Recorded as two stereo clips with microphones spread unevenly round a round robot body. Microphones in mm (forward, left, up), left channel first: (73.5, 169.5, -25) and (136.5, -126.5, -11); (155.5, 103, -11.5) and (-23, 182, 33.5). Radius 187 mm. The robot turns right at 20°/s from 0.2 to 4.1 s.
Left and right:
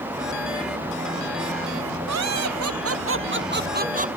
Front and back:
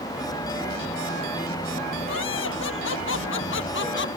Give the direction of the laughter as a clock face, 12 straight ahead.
2 o'clock.